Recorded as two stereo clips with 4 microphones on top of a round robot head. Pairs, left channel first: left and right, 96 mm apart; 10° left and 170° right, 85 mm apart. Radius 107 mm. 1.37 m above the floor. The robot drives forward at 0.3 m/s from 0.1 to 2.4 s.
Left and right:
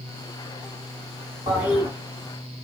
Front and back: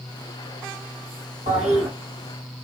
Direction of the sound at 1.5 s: 145° right.